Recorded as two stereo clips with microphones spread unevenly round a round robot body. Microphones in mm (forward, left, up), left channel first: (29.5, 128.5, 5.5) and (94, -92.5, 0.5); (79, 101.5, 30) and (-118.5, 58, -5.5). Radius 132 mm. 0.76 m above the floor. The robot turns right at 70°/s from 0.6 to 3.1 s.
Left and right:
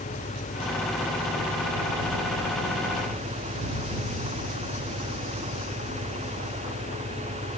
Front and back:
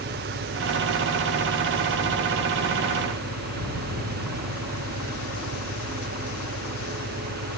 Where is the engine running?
175° left; by 7.6 s 10° right.